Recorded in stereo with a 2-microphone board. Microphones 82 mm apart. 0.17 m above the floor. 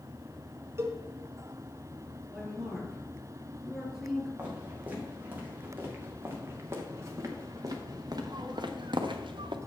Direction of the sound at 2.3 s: 5° right (ahead or behind).